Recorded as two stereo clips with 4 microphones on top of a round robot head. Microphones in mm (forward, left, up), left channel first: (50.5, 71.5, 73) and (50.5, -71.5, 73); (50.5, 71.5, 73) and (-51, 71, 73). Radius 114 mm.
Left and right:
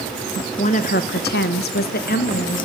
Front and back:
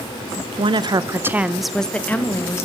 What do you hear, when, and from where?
0.6 s a woman speaking: 145° left, 1.2 m; by 2.7 s 65° left, 2 m